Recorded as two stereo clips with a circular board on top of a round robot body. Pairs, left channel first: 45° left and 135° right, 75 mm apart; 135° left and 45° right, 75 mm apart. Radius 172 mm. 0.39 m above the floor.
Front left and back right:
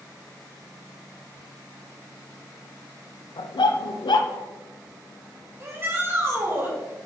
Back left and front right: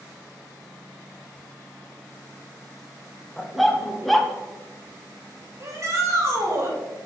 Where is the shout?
85° right, 2.5 m.